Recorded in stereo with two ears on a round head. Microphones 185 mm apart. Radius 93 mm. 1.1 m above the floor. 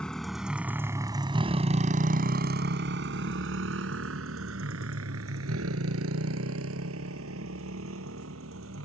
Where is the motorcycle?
5° left (ahead or behind); by 8.8 s 75° right (ahead or behind).